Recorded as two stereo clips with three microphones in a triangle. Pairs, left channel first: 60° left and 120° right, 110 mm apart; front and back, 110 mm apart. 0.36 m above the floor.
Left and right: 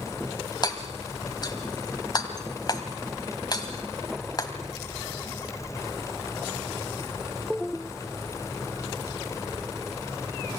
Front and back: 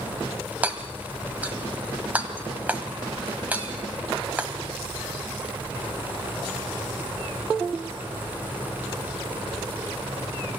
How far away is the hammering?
About 1.7 m.